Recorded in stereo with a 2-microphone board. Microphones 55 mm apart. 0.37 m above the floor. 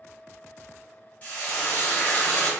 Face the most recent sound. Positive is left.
turn(degrees=30)  # may be behind; listen again after turning